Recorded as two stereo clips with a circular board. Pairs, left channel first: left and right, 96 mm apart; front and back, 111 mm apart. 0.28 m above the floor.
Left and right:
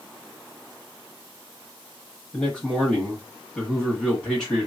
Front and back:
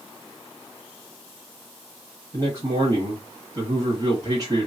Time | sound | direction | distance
2.3 | a man speaking | 175° left | 1.0 m